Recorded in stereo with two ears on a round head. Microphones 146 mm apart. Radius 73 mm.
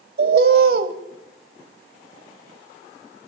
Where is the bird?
65° right (ahead or behind), 1.2 m.